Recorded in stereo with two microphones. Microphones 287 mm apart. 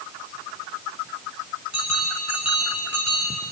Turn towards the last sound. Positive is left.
turn(degrees=-70)  # may be behind; listen again after turning